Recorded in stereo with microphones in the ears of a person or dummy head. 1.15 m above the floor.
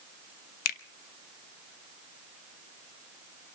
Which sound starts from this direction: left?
A finger snap, at 0.7 s.